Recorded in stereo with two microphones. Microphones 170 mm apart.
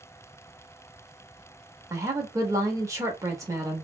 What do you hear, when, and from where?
1.9 s a woman speaking: 20° right (ahead or behind), 0.9 m